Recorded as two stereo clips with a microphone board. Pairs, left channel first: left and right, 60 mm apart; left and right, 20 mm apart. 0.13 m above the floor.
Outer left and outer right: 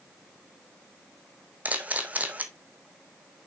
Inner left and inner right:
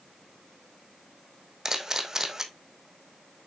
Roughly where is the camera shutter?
Right.